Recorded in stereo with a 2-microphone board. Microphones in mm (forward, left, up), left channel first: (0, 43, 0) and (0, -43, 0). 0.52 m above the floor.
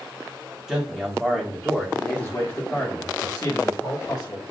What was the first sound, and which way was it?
A man speaking, 10° right (ahead or behind).